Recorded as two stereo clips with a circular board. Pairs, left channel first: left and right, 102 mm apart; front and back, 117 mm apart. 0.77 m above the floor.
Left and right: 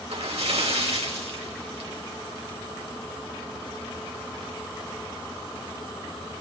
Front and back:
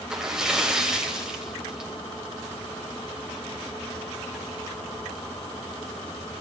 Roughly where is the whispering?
No whispering in this recording.